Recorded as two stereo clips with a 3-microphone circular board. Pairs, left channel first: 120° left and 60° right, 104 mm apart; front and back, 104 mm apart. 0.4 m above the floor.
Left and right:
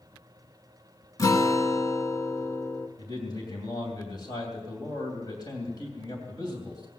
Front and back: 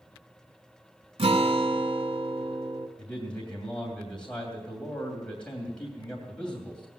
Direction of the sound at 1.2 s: 175° left.